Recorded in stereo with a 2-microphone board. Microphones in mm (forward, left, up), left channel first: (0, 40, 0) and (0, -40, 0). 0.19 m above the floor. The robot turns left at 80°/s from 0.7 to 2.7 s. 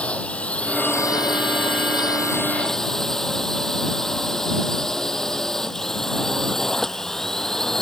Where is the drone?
165° left; by 7.8 s 5° left.